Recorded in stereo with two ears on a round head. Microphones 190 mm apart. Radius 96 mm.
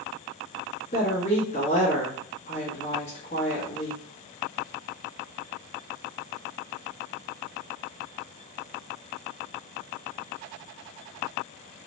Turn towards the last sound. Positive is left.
turn(degrees=30)  # may be behind; listen again after turning